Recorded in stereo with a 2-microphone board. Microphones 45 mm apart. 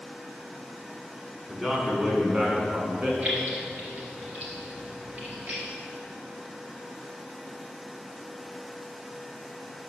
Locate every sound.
1.5 s a man speaking: 10° right (ahead or behind), 2.0 m; by 3.1 s 35° right (ahead or behind), 2 m
3.2 s keys jangling: 45° right (ahead or behind), 2.5 m